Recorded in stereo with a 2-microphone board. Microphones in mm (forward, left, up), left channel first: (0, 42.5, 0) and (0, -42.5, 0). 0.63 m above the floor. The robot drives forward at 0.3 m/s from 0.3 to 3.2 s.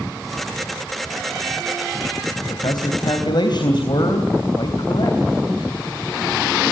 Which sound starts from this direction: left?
A man speaking, at 2.4 s.